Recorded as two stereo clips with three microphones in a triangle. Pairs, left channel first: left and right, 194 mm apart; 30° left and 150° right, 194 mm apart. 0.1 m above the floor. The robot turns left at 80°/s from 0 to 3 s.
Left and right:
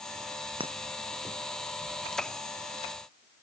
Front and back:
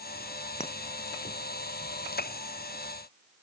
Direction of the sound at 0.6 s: 25° right.